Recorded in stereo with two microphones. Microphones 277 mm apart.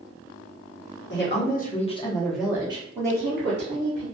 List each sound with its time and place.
1.1 s a woman speaking: 40° left (ahead or behind), 1.0 m; by 4.0 s 45° right (ahead or behind), 1.2 m